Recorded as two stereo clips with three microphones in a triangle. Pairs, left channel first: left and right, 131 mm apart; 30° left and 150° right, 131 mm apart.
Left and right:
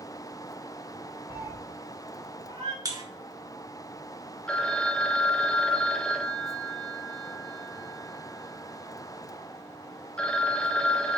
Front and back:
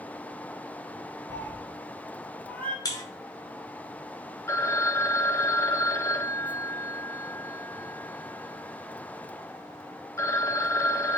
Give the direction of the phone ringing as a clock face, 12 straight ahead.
11 o'clock.